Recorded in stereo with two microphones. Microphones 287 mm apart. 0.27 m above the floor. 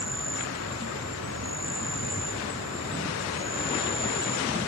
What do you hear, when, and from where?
0.0 s an insect: 60° right (ahead or behind)